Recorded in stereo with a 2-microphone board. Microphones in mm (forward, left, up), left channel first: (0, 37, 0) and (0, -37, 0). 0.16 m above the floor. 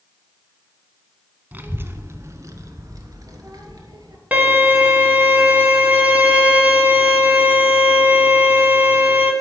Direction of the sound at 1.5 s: 25° right (ahead or behind).